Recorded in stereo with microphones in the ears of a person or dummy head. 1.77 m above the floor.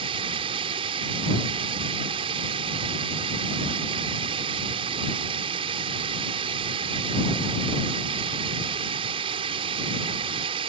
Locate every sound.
0.0 s running water: 30° right (ahead or behind)